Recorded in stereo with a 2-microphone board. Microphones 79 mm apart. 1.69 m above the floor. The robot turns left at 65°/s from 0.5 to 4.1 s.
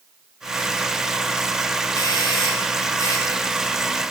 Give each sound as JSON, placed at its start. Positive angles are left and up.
{"t": 1.9, "sound": "a doorbell", "azimuth_deg": 130, "distance_m": 3.5}